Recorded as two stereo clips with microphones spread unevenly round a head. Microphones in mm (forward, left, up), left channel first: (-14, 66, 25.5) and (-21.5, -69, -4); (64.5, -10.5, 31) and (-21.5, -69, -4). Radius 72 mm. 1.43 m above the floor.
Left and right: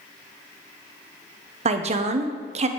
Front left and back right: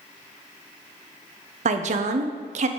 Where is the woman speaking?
140° right, 0.6 m.